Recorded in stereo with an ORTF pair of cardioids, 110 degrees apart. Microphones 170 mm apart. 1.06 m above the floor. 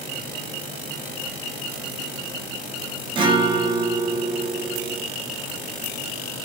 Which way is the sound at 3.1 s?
30° right.